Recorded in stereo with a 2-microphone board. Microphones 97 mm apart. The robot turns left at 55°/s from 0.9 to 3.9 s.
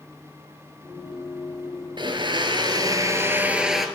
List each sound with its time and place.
2.0 s a blender: 75° right, 0.8 m; by 3.9 s straight behind, 0.8 m